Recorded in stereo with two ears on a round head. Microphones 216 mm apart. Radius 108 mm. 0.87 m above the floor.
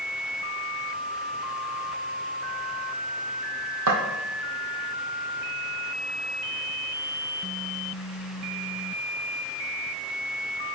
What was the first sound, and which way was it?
Footsteps, 65° right (ahead or behind).